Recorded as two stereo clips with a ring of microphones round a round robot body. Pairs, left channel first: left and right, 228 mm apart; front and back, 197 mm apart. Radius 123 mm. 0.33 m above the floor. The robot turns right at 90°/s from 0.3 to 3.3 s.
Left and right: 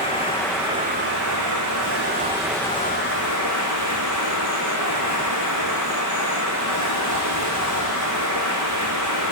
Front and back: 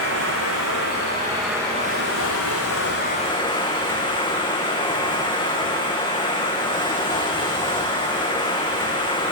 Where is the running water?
155° left, 2.0 m; by 9.3 s 65° left, 2.0 m.